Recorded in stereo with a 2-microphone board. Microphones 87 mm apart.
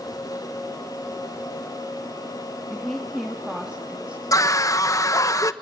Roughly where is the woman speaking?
Centre.